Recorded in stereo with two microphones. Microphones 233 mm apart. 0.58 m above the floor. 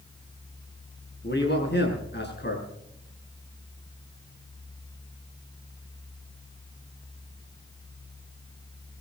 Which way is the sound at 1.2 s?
50° left (ahead or behind).